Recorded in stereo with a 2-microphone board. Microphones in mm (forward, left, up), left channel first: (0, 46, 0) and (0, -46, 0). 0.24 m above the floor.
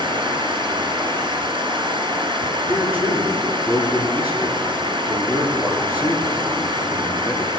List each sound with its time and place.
0.0 s running water: 65° right (ahead or behind), 2.5 m
2.7 s a man speaking: 20° right (ahead or behind), 3.5 m